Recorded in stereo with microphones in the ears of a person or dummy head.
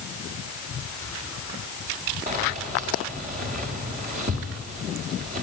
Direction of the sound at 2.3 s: 40° right (ahead or behind).